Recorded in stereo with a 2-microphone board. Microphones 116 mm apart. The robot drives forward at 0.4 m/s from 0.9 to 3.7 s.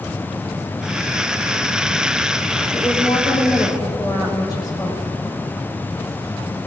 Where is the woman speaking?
35° left (ahead or behind), 6 m.